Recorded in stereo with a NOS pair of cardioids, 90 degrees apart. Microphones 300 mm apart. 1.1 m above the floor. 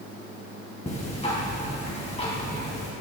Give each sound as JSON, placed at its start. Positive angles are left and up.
{"t": 0.9, "sound": "ticking", "azimuth_deg": 20, "distance_m": 2.5}